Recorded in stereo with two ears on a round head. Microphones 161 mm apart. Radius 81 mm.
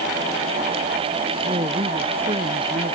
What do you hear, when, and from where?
1.4 s a woman speaking: 30° right (ahead or behind)